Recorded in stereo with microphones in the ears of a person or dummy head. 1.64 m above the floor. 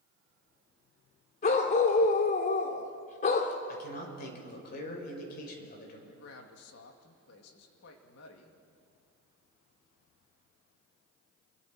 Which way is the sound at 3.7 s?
60° left (ahead or behind).